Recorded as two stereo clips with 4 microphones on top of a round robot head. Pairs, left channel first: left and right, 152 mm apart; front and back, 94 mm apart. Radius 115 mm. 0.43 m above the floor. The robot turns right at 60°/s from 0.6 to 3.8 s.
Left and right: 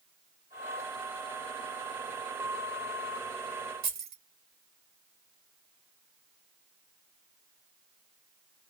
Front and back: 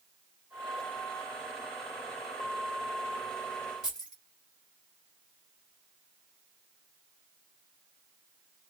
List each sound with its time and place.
3.8 s keys jangling: 95° right, 2 m